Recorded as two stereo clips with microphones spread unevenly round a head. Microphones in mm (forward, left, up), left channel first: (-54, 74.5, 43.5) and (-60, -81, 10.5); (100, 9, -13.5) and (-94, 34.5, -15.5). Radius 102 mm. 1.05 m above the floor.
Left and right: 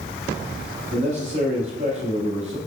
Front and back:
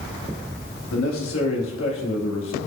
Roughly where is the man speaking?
Ahead right.